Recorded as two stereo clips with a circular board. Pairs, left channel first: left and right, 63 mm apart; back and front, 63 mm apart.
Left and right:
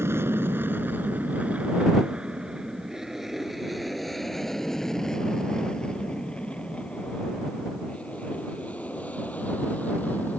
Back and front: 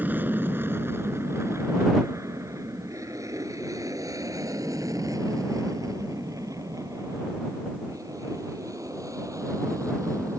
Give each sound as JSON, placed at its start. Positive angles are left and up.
{"t": 0.0, "sound": "an aircraft", "azimuth_deg": -50}